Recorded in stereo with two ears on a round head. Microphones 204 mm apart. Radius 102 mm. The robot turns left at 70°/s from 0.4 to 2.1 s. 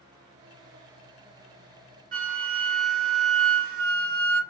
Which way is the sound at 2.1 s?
35° right (ahead or behind).